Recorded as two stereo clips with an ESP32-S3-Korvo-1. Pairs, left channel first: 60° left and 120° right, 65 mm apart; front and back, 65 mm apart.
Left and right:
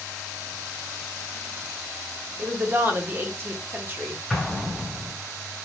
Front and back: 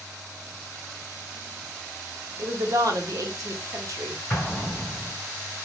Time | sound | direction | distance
2.4 | a woman speaking | 170° right | 0.7 m
4.3 | an explosion | 45° right | 1.0 m